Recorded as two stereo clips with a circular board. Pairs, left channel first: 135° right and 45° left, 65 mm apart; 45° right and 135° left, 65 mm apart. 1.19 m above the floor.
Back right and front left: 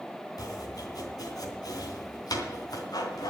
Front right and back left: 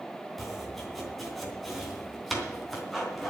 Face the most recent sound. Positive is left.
turn(degrees=-135)